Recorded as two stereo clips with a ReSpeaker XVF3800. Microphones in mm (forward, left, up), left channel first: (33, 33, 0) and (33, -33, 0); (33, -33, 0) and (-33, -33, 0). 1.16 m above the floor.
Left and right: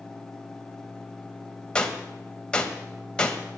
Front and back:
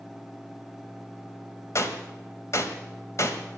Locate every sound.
1.8 s a gunshot: 15° left, 1.3 m